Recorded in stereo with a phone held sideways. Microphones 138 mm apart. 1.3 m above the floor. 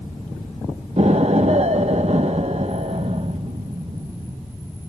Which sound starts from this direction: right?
An explosion, at 1.0 s.